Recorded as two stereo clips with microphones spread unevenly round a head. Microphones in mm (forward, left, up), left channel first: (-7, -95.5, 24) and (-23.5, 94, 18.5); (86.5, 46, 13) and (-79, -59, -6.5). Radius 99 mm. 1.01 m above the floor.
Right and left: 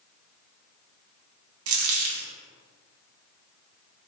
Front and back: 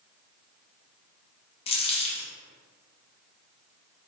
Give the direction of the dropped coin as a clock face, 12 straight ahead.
9 o'clock.